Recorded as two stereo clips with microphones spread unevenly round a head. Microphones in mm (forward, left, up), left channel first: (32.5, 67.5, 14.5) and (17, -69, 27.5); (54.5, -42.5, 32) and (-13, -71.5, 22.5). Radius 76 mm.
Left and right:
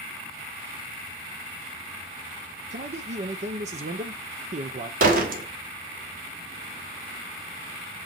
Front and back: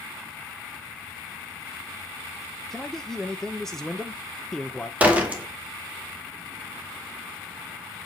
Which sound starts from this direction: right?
A door slam, at 5.0 s.